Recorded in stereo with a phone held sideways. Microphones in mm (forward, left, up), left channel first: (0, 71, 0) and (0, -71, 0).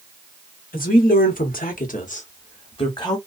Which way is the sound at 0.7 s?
80° left.